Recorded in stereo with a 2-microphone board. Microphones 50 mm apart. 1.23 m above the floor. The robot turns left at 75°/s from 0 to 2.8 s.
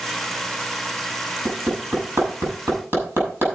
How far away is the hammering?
About 6.5 m.